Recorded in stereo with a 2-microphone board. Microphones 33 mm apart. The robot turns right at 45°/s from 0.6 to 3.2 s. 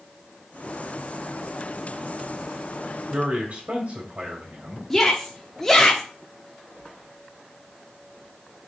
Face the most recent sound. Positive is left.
turn(degrees=10)  # may be behind; listen again after turning